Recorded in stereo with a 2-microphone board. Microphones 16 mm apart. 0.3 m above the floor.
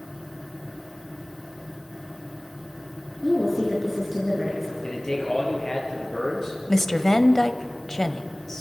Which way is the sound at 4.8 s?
50° left (ahead or behind).